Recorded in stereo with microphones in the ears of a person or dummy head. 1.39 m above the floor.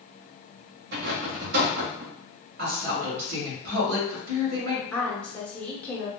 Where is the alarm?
No alarm in this recording.